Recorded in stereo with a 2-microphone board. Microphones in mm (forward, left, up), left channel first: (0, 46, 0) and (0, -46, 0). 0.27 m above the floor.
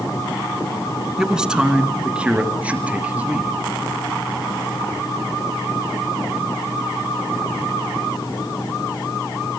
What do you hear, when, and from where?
1.2 s a man speaking: 5° right (ahead or behind), 3 m; by 3.6 s 15° right (ahead or behind), 5.5 m